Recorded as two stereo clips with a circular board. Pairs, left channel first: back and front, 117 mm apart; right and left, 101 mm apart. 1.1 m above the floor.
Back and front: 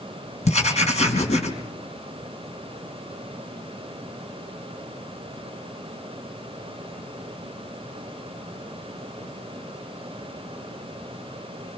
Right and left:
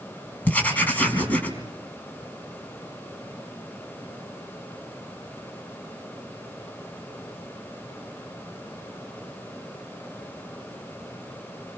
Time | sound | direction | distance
0.5 | writing | 165° right | 4.5 m